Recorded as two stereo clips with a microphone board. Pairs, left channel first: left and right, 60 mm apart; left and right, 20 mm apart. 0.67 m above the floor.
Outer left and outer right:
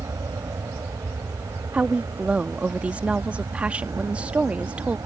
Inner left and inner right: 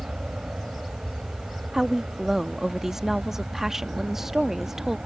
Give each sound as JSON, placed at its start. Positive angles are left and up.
{"t": 0.0, "sound": "an aircraft", "side_deg": -70}
{"t": 1.7, "sound": "a woman speaking", "side_deg": -20}